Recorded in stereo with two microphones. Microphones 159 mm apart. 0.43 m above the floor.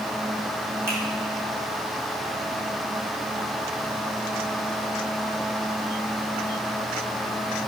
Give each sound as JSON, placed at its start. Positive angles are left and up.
{"t": 0.9, "sound": "a finger snap", "side_deg": -15, "distance_m": 3.0}